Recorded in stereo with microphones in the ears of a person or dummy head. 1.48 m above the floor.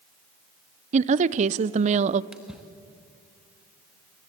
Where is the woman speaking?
45° right (ahead or behind), 0.7 m.